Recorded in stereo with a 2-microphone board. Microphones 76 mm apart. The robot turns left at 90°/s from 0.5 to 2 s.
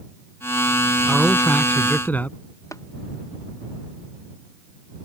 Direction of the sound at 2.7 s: 45° left (ahead or behind).